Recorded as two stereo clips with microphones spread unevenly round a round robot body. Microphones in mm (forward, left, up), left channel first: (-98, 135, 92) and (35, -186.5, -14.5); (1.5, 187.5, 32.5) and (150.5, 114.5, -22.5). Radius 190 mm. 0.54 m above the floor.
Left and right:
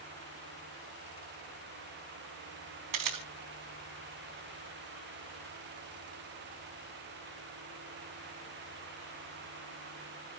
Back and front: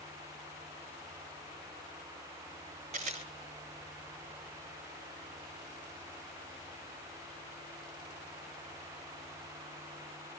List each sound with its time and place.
2.9 s a camera shutter: 95° right, 3.5 m